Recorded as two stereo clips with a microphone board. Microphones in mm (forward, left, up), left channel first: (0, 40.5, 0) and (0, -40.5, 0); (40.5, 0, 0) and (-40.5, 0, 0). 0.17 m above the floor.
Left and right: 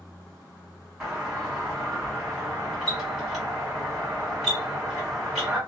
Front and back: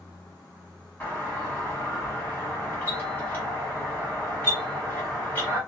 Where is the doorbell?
10° right, 1.4 m.